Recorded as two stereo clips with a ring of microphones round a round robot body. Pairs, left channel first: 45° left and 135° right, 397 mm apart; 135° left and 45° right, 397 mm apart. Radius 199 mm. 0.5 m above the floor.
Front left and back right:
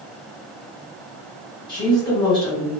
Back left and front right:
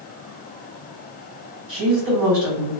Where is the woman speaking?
35° right, 1.7 m.